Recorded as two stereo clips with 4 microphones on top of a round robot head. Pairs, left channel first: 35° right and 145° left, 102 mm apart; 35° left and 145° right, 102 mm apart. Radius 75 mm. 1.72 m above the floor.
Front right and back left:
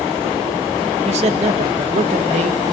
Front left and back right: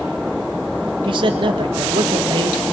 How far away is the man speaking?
About 1.9 m.